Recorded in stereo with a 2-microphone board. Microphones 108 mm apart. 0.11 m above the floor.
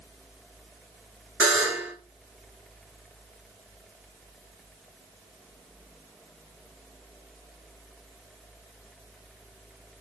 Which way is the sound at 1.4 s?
15° right (ahead or behind).